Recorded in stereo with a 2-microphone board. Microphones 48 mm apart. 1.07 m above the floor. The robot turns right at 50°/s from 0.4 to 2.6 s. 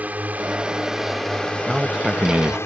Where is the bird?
No bird in this recording.